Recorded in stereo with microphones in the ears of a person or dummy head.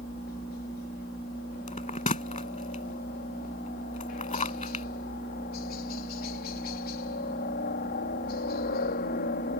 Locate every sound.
0.0 s a helicopter: 45° left (ahead or behind)
1.7 s a bell: 30° left (ahead or behind)